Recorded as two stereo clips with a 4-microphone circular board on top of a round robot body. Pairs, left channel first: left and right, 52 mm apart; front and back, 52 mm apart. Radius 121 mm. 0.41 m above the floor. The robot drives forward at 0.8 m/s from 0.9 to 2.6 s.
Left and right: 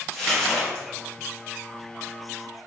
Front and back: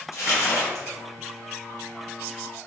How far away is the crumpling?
About 1.4 m.